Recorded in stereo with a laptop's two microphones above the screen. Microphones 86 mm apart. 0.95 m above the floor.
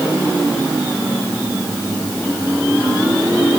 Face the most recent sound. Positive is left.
No sound to turn to.